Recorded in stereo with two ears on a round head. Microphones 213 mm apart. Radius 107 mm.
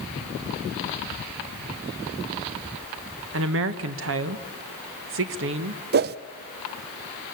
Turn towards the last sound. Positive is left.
turn(degrees=-45)  # may be behind; listen again after turning